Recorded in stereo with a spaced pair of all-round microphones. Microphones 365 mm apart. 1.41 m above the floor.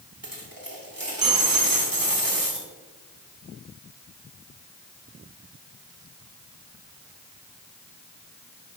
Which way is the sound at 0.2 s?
65° right (ahead or behind).